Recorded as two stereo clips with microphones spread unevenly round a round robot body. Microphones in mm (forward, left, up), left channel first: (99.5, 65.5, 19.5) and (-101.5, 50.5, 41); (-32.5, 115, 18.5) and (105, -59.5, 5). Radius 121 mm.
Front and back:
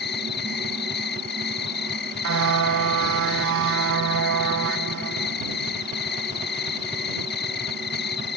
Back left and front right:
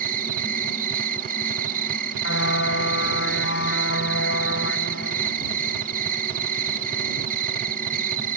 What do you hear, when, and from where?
0.0 s an insect: 10° right
2.2 s a car horn: 175° left